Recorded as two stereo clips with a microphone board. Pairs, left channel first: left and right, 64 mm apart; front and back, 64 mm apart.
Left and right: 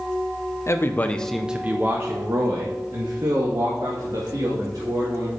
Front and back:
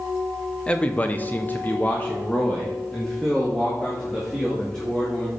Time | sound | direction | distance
0.7 | a man speaking | 65° left | 0.8 m